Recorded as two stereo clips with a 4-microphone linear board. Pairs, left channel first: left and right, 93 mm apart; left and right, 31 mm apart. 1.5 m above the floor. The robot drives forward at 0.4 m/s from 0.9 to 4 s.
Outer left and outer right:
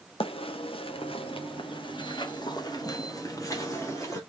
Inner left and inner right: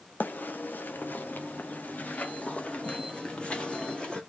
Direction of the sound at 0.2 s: 80° left.